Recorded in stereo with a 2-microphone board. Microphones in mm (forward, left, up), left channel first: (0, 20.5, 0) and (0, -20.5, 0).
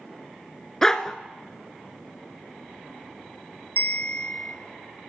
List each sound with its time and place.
0.8 s a dog barking: 15° left (ahead or behind), 0.9 m
3.8 s a bell: 60° left (ahead or behind), 0.9 m